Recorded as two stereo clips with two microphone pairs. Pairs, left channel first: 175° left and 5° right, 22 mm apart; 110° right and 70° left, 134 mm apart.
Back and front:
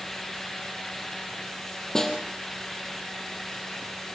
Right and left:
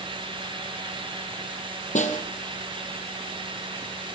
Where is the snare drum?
120° right, 3.5 m.